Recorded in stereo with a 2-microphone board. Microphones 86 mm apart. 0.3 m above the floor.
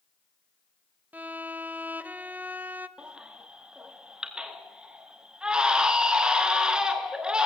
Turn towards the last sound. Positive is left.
turn(degrees=-10)  # may be behind; listen again after turning